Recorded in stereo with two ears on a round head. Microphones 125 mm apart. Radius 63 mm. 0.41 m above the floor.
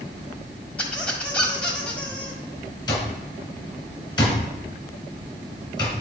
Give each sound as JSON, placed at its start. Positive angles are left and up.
{"t": 0.8, "sound": "a squeak", "side_deg": 10, "distance_m": 1.6}
{"t": 2.9, "sound": "an alarm clock", "side_deg": 30, "distance_m": 2.5}